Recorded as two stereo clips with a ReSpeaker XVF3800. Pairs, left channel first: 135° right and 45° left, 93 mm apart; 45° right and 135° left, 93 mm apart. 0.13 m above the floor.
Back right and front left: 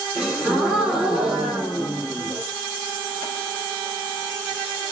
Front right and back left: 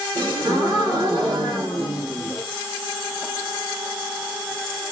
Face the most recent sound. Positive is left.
turn(degrees=130)